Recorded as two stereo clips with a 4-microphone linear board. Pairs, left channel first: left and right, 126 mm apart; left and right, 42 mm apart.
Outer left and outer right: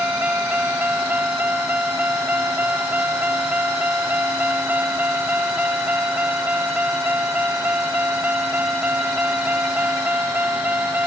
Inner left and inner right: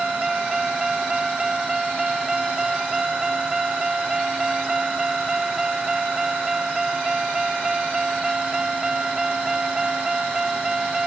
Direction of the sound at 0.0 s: 10° right (ahead or behind).